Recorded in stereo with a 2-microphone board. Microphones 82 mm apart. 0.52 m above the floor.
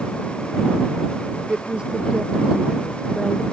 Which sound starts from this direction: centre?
A woman speaking, at 1.5 s.